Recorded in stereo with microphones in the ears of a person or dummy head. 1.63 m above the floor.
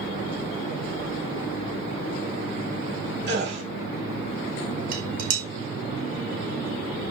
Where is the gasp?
65° right (ahead or behind), 6.5 m.